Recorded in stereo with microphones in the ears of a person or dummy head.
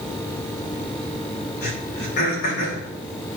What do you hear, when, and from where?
1.6 s throat clearing: 55° left (ahead or behind), 2 m